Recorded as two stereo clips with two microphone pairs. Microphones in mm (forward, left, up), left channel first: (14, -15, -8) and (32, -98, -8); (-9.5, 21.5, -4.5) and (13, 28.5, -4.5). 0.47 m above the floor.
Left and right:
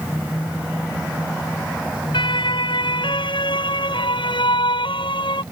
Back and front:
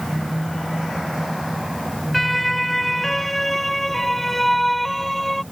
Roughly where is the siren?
Left.